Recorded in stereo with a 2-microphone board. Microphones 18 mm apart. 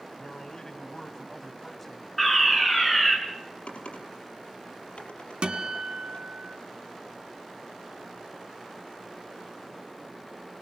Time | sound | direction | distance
0.2 | a man speaking | 40° left (ahead or behind) | 2 m
2.2 | a fire alarm | 5° left (ahead or behind) | 4.5 m
3.7 | typing on a keyboard | 80° left | 4.5 m
5.4 | a guitar | 60° right (ahead or behind) | 2.5 m